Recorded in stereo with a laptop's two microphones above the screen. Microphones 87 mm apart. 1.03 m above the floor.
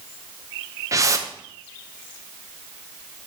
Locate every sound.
0.9 s a whoosh: 35° right (ahead or behind), 0.8 m